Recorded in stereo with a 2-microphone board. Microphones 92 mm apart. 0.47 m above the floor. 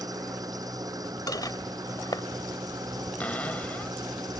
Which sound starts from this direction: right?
An engine running, at 0.0 s.